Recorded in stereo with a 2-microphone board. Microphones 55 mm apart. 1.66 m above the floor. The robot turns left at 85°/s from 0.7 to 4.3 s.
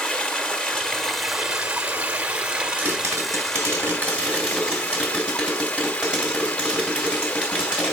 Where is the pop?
30° right, 3 m; by 7.9 s 160° right, 3 m.